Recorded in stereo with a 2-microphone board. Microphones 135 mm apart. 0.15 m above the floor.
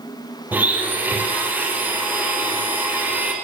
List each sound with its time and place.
0.5 s a blender: 15° right (ahead or behind), 4.5 m